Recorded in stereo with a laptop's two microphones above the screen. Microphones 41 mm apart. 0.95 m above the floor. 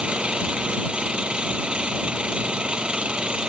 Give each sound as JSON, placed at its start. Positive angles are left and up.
{"t": 0.0, "sound": "an engine running", "side_deg": -25}